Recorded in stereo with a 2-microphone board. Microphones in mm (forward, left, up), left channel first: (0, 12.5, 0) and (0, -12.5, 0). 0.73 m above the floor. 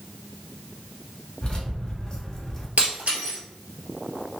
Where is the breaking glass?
60° right (ahead or behind), 1.5 m.